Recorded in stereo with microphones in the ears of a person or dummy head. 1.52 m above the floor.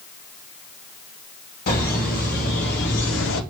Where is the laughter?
50° left (ahead or behind), 2 m; by 3.4 s 75° left (ahead or behind), 0.6 m.